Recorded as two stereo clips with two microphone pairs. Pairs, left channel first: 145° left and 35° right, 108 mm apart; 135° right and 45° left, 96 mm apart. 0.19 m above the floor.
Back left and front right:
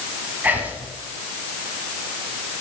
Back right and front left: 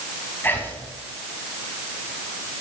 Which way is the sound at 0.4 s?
90° right.